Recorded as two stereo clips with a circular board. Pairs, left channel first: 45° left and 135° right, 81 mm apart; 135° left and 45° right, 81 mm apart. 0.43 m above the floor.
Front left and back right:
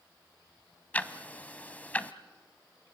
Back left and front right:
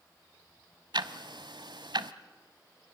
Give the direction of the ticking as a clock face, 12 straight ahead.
1 o'clock.